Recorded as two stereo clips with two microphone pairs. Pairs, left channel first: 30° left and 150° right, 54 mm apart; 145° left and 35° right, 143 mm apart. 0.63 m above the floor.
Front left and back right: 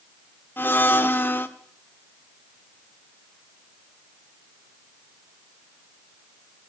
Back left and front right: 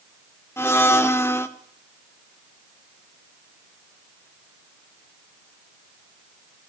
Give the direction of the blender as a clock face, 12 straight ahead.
9 o'clock.